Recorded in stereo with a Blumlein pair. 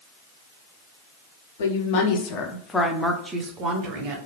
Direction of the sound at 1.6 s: 55° left.